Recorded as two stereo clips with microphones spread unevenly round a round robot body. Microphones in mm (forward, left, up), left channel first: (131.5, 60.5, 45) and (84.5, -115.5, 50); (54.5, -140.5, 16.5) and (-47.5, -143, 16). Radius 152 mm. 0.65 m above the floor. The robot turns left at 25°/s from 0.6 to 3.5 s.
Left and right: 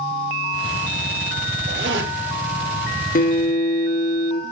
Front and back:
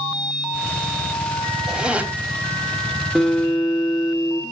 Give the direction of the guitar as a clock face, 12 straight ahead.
9 o'clock.